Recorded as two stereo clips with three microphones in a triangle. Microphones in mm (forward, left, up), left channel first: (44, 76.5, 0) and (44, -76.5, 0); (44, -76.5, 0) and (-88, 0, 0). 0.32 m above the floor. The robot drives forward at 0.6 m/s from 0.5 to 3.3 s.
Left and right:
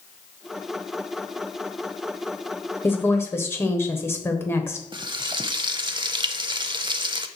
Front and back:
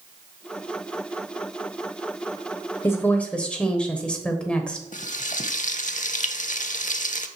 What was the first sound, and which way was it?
A woman speaking, 25° left.